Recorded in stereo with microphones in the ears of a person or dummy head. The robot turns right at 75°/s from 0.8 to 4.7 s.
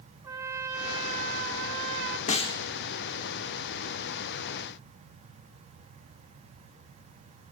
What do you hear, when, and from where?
0.2 s a trumpet: 155° right, 1.0 m; by 2.2 s 55° right, 1.0 m
2.3 s a snare drum: 35° left (ahead or behind), 0.8 m; by 2.6 s 15° left (ahead or behind), 0.8 m